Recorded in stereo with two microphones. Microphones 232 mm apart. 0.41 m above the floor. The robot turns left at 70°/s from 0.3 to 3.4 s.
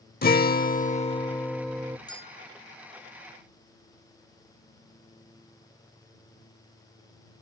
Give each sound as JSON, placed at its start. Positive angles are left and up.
{"t": 0.2, "sound": "a guitar", "azimuth_deg": 95}
{"t": 2.1, "sound": "a bell", "azimuth_deg": 165}